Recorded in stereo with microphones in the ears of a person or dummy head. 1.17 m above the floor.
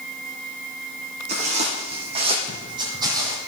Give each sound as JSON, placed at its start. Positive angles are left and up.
{"t": 1.3, "sound": "footsteps", "side_deg": -40, "distance_m": 3.5}